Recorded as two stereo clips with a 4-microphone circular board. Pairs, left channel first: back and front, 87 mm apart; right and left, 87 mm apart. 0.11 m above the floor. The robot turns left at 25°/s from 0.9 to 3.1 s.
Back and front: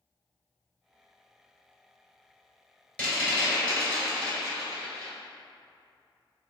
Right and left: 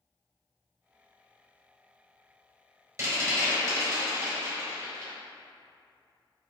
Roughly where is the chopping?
No chopping in this recording.